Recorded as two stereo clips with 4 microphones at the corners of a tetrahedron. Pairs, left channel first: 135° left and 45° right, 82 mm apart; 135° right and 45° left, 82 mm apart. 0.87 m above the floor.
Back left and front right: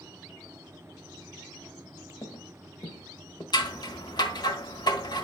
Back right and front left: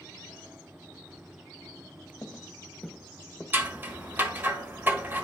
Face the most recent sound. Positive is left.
turn(degrees=110)